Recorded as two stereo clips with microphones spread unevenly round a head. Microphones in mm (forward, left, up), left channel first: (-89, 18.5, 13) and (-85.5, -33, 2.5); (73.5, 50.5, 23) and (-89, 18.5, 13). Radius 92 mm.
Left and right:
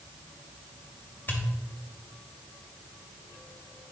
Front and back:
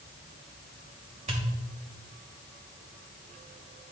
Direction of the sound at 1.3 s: 150° left.